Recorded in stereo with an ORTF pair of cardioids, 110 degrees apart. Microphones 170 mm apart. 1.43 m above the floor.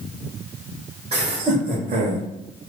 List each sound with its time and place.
1.1 s laughter: 35° right, 1.7 m; by 2.3 s 65° right, 1.5 m